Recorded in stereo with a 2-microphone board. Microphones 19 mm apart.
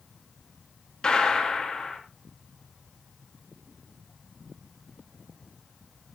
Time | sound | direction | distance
1.0 | a gunshot | 50° left (ahead or behind) | 2.5 m